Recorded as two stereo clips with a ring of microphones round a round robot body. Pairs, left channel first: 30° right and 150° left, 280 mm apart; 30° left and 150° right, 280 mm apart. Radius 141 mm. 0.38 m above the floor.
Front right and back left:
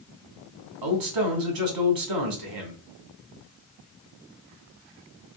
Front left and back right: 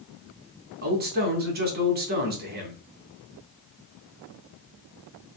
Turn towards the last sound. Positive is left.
turn(degrees=150)